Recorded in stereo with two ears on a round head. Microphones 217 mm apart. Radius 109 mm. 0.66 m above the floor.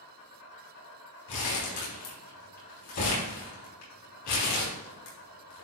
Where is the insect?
70° left (ahead or behind), 3.5 m.